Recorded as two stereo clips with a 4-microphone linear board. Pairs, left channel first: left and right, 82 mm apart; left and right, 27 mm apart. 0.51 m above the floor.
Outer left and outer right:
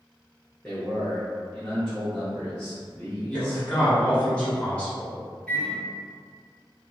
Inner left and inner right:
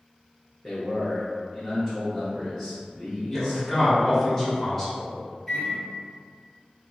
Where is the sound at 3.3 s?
15° left (ahead or behind), 0.9 m.